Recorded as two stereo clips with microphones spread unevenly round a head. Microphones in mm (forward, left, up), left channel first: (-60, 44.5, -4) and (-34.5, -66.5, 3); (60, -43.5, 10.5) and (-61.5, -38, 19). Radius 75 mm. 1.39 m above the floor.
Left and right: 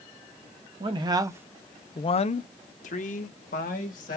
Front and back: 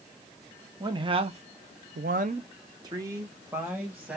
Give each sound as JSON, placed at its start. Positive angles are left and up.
{"t": 0.8, "sound": "a man speaking", "azimuth_deg": -125, "distance_m": 1.0}